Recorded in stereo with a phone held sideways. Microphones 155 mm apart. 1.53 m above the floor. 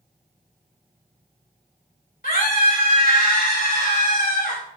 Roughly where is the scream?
Left.